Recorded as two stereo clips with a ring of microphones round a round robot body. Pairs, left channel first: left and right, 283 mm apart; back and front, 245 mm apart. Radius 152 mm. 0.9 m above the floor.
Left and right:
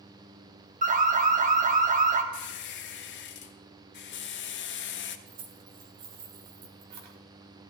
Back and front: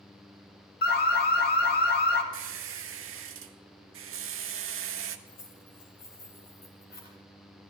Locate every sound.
0.8 s an alarm: 145° right, 1.6 m
2.3 s a squeak: 35° left, 0.8 m
5.3 s keys jangling: 120° right, 2 m